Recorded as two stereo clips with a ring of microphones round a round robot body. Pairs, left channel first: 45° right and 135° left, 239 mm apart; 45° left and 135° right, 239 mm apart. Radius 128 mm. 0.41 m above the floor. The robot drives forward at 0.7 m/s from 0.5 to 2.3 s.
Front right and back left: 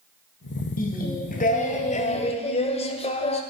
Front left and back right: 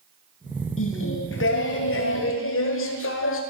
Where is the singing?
10° left, 2.5 m; by 3.4 s 20° left, 1.3 m.